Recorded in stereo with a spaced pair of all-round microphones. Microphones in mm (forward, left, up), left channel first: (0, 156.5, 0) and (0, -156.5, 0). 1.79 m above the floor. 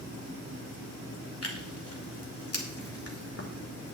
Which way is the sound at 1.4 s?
50° left (ahead or behind).